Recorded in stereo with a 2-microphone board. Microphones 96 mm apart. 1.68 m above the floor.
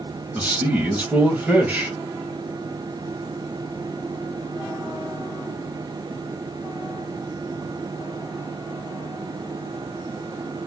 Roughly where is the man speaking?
Centre.